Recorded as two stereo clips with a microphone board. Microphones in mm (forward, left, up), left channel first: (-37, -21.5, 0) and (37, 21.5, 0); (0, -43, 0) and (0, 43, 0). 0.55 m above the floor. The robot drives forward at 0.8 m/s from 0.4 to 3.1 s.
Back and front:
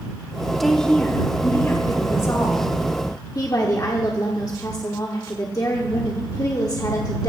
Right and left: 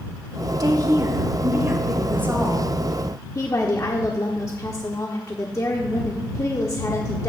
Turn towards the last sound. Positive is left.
turn(degrees=-120)